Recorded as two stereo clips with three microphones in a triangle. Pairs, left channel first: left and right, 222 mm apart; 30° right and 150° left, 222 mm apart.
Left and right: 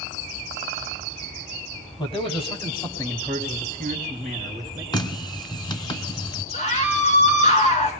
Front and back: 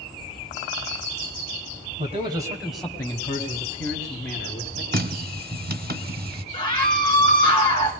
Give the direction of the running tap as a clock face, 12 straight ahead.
7 o'clock.